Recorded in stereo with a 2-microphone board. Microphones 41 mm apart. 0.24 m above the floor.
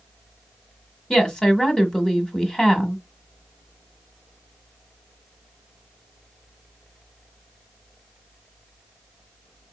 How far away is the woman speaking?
About 1.3 m.